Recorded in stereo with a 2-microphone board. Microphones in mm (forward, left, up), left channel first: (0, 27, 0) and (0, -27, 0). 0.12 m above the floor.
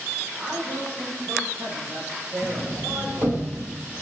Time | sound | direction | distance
0.4 | a man speaking | 45° right (ahead or behind) | 5.5 m
2.4 | a sliding door | 50° right (ahead or behind) | 1.5 m